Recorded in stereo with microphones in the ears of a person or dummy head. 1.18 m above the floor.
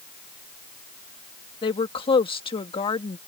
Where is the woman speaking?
25° left (ahead or behind).